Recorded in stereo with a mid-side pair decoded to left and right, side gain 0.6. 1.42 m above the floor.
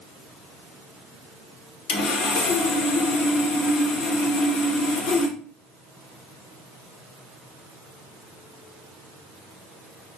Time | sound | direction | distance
1.9 | sawing | 70° left | 1.1 m